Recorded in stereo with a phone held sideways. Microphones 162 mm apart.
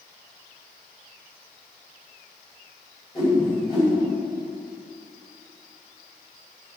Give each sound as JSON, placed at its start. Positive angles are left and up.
{"t": 3.1, "sound": "a whoosh", "side_deg": 30, "distance_m": 4.5}